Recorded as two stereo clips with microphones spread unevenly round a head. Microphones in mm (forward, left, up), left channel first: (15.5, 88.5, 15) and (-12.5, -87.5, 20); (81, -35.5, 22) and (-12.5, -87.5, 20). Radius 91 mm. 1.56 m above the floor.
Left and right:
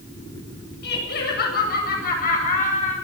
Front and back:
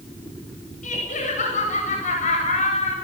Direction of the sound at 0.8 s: 50° left.